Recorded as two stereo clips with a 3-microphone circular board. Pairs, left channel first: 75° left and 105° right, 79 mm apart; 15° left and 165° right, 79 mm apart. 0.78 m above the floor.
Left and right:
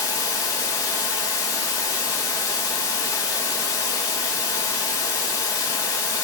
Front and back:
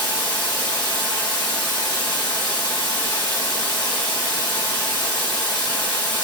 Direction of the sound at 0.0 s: 35° left.